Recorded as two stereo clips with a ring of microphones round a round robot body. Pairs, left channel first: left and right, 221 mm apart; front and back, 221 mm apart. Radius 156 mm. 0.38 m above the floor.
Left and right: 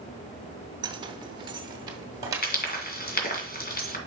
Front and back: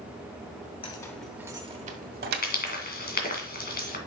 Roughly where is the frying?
Ahead left.